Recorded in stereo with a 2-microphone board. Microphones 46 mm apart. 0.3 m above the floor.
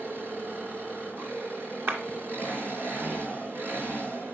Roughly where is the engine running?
Right.